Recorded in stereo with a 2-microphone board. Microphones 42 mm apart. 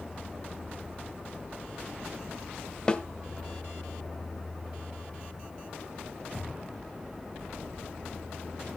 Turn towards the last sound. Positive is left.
turn(degrees=20)  # may be behind; listen again after turning